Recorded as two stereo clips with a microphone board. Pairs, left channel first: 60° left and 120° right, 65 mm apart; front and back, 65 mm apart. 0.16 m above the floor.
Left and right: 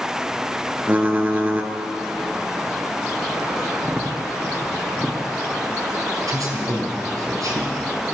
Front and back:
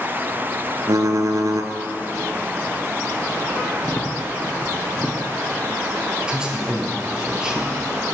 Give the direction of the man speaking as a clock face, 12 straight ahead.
4 o'clock.